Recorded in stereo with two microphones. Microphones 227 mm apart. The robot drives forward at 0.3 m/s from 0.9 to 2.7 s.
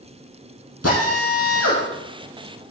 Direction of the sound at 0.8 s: 85° left.